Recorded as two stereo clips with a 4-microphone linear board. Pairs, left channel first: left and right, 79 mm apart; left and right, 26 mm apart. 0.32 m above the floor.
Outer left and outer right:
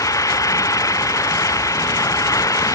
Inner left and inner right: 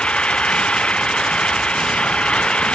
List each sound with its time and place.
0.0 s an engine running: 45° left (ahead or behind)